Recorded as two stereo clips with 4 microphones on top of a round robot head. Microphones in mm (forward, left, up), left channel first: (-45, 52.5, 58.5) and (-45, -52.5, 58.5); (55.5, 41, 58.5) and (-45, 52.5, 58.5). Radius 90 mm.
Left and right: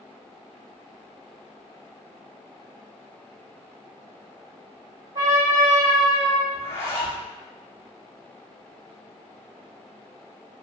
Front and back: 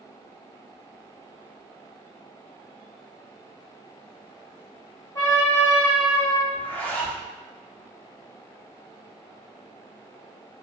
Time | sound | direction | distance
5.2 | a trumpet | 50° right | 1.0 m
6.5 | a zipper | 50° left | 0.9 m